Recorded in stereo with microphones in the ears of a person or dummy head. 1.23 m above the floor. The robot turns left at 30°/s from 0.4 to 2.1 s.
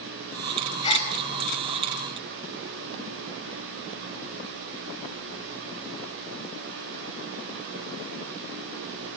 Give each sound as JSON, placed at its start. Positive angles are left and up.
{"t": 0.8, "sound": "a gasp", "side_deg": 25, "distance_m": 5.5}